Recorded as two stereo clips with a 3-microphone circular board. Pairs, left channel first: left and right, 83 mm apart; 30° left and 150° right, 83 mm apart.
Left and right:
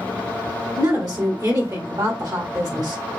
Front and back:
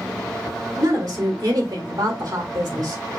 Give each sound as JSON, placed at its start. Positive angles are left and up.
{"t": 0.8, "sound": "a woman speaking", "azimuth_deg": -120, "distance_m": 1.5}